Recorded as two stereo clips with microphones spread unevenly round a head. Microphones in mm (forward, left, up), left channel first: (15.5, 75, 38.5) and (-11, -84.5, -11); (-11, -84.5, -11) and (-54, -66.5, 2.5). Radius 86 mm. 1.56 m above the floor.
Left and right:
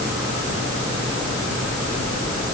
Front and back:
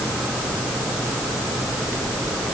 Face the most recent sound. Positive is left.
No sound to turn to.